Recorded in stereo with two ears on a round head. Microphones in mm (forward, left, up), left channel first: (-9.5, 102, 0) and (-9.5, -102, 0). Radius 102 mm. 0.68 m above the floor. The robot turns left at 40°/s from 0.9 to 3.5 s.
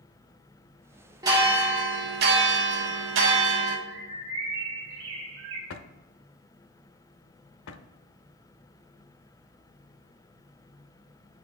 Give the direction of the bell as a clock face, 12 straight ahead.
1 o'clock.